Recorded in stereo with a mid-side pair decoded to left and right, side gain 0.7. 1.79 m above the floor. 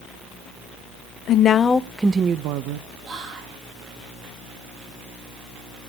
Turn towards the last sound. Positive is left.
turn(degrees=-35)